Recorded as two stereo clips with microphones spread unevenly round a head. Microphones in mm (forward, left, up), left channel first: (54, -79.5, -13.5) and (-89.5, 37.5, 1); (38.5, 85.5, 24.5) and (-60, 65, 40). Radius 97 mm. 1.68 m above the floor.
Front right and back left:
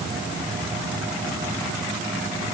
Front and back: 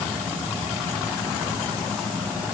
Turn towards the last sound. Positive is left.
No sound to turn to.